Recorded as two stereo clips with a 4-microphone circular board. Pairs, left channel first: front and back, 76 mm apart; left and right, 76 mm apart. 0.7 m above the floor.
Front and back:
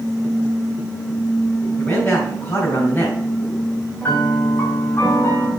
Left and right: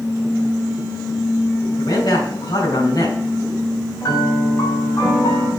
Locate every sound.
1.8 s a man speaking: 70° left, 3.5 m
4.0 s a piano: 55° left, 2 m